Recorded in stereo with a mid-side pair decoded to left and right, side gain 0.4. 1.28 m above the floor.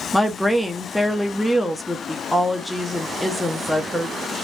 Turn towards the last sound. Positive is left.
turn(degrees=5)